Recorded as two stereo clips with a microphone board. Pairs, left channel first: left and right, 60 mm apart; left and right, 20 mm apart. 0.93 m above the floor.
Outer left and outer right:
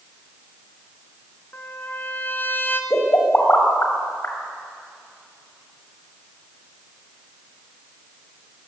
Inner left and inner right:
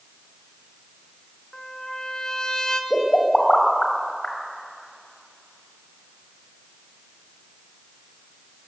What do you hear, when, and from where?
1.5 s a trumpet: 35° left (ahead or behind), 2.5 m
2.9 s a pop: 35° left (ahead or behind), 5.5 m